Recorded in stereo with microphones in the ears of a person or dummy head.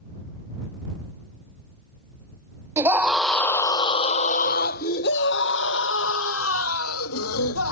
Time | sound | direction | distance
2.8 | a scream | 10° right (ahead or behind) | ?